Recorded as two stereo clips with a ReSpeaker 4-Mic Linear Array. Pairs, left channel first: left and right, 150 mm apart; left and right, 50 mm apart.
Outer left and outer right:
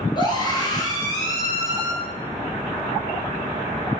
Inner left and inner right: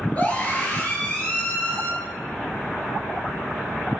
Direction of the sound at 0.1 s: 30° left (ahead or behind).